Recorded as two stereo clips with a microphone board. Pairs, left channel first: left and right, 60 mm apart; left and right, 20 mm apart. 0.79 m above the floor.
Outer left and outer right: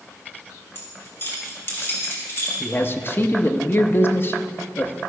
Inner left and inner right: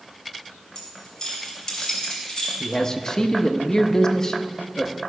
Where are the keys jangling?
40° left (ahead or behind), 3.5 m.